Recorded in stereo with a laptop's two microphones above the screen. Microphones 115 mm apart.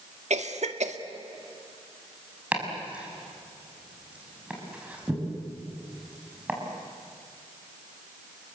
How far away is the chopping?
About 6 m.